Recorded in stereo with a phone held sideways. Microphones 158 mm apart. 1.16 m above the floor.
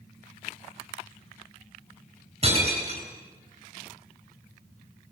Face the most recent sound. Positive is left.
turn(degrees=-40)  # may be behind; listen again after turning